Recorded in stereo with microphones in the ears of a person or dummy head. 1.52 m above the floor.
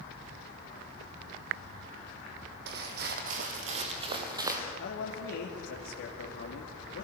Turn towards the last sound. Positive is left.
turn(degrees=80)